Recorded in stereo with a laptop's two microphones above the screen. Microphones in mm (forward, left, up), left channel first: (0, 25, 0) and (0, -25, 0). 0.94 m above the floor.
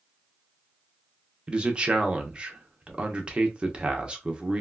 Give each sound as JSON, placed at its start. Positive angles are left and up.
{"t": 1.5, "sound": "a man speaking", "side_deg": -20, "distance_m": 0.7}